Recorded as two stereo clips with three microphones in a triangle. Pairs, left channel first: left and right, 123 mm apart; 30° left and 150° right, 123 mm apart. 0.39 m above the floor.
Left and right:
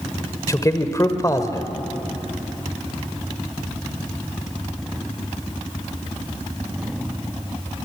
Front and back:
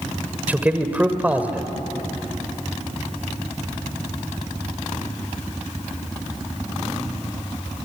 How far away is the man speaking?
About 1.7 m.